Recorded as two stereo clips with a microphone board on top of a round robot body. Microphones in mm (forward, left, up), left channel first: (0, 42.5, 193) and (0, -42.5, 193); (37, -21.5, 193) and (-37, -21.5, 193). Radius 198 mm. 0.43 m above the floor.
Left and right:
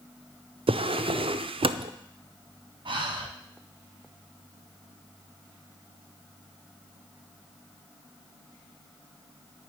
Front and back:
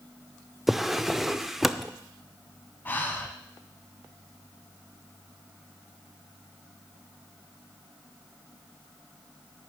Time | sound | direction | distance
0.7 | a drawer | 90° right | 0.6 m
2.9 | breathing | 65° right | 1.4 m